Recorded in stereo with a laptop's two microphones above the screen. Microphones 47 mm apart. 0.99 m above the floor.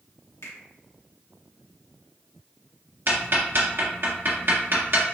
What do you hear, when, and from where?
0.4 s a finger snap: 75° left (ahead or behind), 1.4 m
3.1 s ticking: 50° right (ahead or behind), 1.4 m